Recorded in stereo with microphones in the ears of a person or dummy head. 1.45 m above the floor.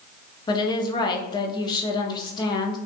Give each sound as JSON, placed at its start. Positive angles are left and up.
{"t": 0.5, "sound": "a woman speaking", "side_deg": 20, "distance_m": 0.8}